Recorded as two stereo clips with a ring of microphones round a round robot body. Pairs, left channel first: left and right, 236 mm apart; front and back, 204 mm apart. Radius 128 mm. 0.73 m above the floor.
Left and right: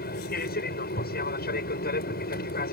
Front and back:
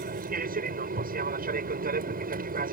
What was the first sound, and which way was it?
An aircraft, 140° left.